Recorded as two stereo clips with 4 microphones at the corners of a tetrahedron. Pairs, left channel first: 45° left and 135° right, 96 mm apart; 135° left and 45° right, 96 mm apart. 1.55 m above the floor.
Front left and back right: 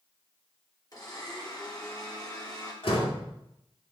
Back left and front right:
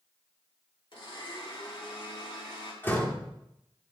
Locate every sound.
0.9 s a blender: 100° left, 4.5 m
2.8 s a door slam: 65° left, 3 m